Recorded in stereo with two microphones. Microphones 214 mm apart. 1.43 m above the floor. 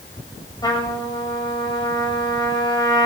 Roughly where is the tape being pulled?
No tape being pulled in this recording.